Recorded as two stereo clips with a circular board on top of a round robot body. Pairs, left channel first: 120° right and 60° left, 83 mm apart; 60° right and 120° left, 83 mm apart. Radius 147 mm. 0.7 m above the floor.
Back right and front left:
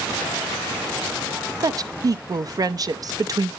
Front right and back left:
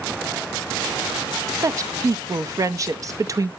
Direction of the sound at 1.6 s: 85° left.